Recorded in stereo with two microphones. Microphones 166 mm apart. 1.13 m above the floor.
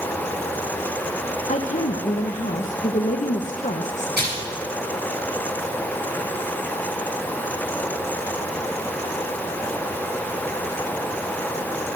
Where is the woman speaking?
45° left (ahead or behind), 1.1 m.